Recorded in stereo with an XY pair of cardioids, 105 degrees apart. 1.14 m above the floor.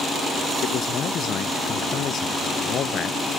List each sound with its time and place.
0.6 s a man speaking: 55° left